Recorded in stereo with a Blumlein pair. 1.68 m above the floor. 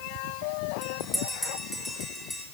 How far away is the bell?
About 4 m.